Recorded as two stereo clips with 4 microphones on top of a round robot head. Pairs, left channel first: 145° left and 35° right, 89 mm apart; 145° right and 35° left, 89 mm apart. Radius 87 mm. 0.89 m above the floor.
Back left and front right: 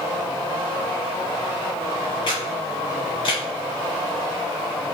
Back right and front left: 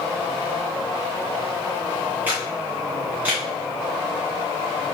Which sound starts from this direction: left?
A camera shutter, at 2.3 s.